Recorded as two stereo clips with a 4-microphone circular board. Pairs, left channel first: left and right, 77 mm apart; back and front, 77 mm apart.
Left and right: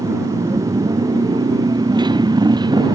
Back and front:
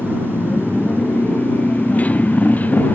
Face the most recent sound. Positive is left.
turn(degrees=-110)